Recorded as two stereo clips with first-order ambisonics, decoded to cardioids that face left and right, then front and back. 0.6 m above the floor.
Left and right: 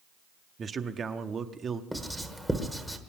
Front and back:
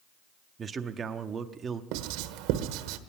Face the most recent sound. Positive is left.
turn(degrees=180)